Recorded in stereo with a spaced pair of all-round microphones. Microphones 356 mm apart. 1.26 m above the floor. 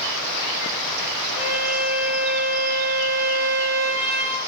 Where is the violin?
20° left (ahead or behind), 1.3 m.